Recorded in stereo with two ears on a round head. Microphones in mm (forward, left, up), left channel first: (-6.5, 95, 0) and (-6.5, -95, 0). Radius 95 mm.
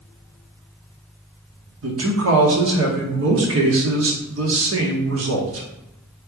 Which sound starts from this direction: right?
A man speaking, at 1.8 s.